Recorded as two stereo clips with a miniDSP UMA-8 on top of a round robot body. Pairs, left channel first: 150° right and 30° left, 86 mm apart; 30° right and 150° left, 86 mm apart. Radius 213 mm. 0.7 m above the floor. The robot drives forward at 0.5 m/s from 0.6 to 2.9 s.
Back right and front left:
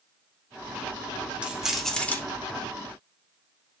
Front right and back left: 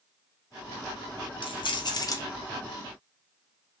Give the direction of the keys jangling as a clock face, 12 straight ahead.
2 o'clock.